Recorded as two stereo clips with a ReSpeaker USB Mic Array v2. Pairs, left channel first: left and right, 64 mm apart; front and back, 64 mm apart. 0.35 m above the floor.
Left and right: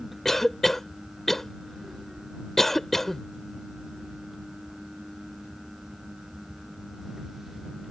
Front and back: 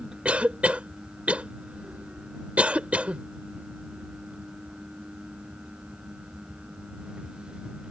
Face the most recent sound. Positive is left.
turn(degrees=165)